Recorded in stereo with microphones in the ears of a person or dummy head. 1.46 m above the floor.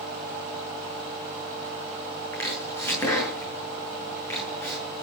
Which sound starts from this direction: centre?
Chopping, at 2.3 s.